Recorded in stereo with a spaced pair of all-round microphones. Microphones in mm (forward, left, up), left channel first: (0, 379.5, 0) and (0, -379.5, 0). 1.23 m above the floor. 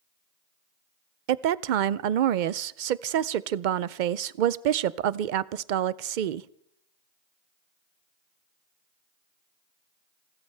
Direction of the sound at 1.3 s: 80° right.